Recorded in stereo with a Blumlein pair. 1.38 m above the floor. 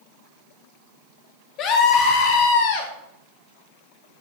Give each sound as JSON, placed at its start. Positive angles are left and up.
{"t": 1.6, "sound": "a scream", "azimuth_deg": 35, "distance_m": 3.5}